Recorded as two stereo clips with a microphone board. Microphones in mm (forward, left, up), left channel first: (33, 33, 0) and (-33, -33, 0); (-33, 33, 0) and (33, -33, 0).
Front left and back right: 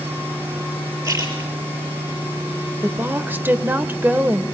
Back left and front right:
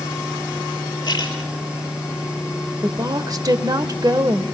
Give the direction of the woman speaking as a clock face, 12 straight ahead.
2 o'clock.